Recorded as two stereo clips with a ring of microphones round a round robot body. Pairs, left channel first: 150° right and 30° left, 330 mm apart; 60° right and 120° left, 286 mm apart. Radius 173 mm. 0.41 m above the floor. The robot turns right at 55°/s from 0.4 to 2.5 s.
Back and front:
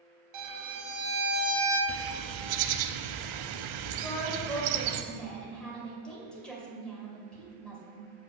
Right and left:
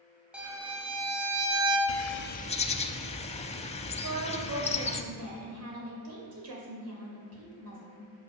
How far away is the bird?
About 0.7 m.